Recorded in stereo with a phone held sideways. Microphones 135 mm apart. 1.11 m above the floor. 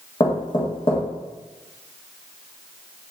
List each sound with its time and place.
0.2 s knocking: 40° left (ahead or behind), 1.3 m